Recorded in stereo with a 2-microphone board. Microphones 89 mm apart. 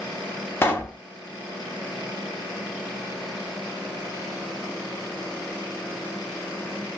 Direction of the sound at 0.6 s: 25° left (ahead or behind).